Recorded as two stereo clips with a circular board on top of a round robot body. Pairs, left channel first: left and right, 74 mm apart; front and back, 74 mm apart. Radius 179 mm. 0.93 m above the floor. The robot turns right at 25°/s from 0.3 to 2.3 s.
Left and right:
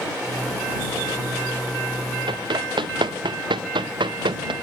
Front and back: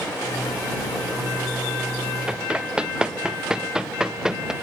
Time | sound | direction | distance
2.3 | running footsteps | 105° right | ?